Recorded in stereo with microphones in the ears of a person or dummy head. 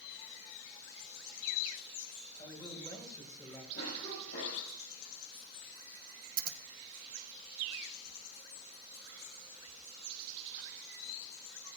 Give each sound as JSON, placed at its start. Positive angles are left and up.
{"t": 2.4, "sound": "a man speaking", "side_deg": 25, "distance_m": 5.5}
{"t": 3.7, "sound": "a cough", "side_deg": 60, "distance_m": 7.0}
{"t": 6.4, "sound": "scissors", "side_deg": -45, "distance_m": 0.9}